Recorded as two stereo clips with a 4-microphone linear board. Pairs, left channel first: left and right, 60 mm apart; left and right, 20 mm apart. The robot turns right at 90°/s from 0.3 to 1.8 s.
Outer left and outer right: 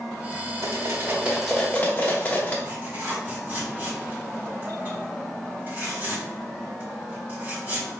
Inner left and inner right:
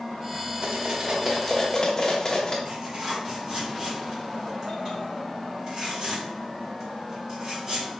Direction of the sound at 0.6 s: 70° right (ahead or behind).